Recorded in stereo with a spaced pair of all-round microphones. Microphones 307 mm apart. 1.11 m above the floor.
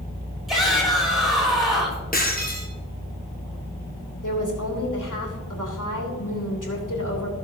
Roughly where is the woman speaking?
Left.